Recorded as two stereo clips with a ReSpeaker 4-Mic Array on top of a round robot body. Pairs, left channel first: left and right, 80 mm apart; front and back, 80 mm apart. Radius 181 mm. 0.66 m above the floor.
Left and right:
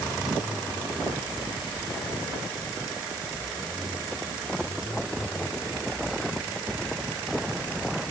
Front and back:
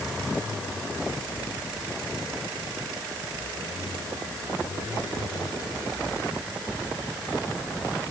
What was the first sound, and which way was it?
Only background noise.